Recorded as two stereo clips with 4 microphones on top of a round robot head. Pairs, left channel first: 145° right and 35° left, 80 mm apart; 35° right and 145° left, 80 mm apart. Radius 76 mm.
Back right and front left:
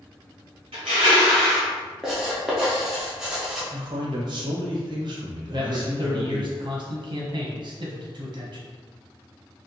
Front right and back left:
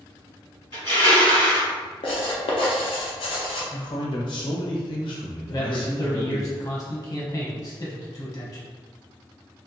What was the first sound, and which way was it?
Crushing, 10° left.